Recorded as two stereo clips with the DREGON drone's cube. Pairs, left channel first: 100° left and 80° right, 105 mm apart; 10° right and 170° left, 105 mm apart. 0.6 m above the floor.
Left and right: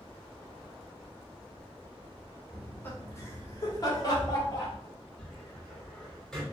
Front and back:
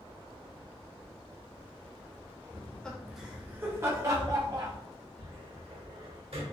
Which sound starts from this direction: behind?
A cupboard door, at 5.2 s.